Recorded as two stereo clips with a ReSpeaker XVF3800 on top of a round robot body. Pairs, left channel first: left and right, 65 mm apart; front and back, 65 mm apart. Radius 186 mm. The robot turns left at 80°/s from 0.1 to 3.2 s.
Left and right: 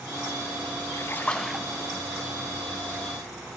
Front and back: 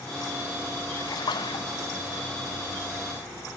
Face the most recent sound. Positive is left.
turn(degrees=-135)